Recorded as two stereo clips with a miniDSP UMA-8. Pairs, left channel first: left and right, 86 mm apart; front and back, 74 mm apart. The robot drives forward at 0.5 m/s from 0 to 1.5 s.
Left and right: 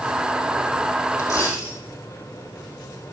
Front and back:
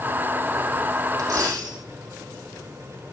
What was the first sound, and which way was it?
A dropped coin, 140° left.